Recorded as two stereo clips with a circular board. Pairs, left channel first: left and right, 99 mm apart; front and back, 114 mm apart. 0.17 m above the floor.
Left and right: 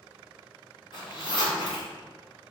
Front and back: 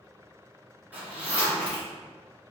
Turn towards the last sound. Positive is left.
turn(degrees=105)